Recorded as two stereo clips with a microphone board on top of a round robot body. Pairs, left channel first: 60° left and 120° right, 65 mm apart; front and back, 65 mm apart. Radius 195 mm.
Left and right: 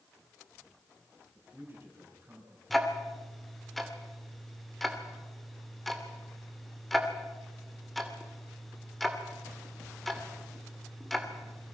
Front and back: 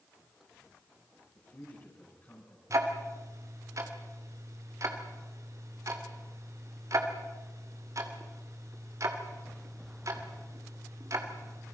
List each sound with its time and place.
1.4 s a man speaking: 55° right, 5.5 m
2.7 s ticking: 150° left, 2.5 m